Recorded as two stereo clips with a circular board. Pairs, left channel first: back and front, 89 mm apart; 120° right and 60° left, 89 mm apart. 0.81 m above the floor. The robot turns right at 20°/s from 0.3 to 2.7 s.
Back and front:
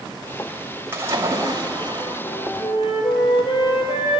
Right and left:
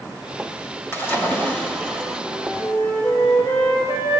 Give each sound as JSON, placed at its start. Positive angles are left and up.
{"t": 0.9, "sound": "a splash", "azimuth_deg": -60, "distance_m": 3.0}
{"t": 2.2, "sound": "a flute", "azimuth_deg": -170, "distance_m": 6.0}